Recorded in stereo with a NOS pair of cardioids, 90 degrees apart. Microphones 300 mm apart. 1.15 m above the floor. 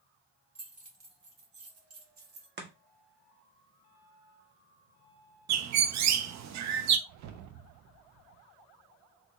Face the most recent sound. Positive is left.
turn(degrees=-70)